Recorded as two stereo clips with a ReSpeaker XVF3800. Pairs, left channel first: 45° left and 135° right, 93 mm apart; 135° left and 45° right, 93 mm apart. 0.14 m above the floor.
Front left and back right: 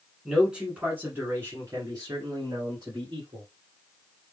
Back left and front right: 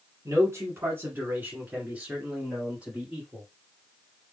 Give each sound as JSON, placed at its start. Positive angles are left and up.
{"t": 0.2, "sound": "a man speaking", "azimuth_deg": -50, "distance_m": 1.5}